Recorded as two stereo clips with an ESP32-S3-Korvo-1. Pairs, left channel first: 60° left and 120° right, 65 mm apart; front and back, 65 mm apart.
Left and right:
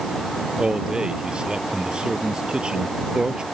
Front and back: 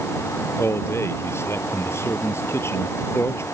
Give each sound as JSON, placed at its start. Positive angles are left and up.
{"t": 0.6, "sound": "a man speaking", "azimuth_deg": -45}